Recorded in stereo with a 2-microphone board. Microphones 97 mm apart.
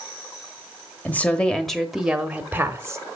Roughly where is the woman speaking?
Centre.